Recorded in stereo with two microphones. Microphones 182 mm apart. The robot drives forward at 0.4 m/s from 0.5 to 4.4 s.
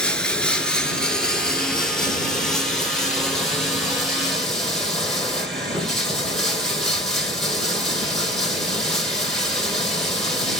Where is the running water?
5° left (ahead or behind), 1.1 m; by 10.6 s centre (ahead or behind), 2.5 m.